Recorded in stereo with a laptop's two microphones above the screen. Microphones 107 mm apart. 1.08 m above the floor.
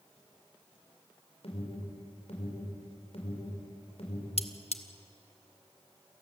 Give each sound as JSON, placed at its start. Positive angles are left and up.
{"t": 1.4, "sound": "an alarm", "side_deg": 70, "distance_m": 5.0}
{"t": 4.4, "sound": "cutlery clinking", "side_deg": 70, "distance_m": 1.0}